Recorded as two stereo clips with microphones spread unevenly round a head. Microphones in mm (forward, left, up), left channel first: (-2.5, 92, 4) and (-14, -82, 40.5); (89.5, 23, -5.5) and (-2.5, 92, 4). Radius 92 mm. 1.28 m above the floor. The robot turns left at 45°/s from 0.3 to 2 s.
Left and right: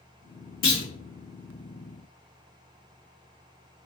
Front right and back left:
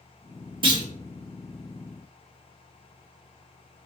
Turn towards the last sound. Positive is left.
turn(degrees=35)